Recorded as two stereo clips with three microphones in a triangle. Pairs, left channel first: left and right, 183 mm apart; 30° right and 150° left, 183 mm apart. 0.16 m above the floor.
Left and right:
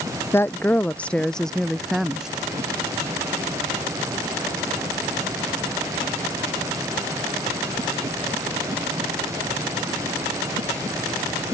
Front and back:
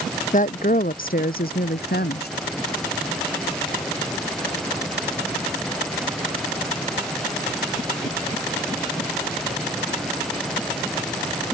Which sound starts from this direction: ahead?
A woman speaking, at 0.3 s.